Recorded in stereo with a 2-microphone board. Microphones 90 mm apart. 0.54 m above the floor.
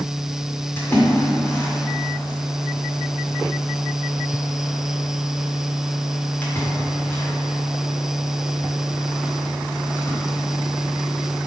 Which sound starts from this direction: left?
A splash, at 0.8 s.